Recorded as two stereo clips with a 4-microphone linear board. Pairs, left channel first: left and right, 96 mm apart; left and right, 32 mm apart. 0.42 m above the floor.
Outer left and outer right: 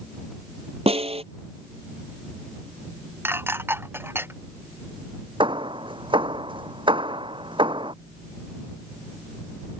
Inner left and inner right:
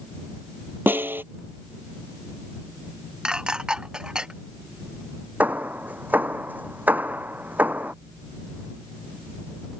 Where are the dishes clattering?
20° right (ahead or behind).